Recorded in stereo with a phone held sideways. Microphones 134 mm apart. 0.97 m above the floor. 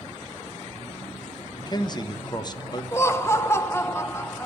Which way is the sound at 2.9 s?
20° left (ahead or behind).